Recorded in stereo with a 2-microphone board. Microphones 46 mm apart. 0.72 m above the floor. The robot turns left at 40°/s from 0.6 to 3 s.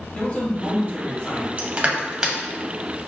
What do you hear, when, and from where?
0.1 s a man speaking: 145° left, 1.5 m; by 1.5 s 110° left, 1.5 m
1.6 s crushing: 30° right (ahead or behind), 0.6 m; by 2.4 s 15° right (ahead or behind), 0.6 m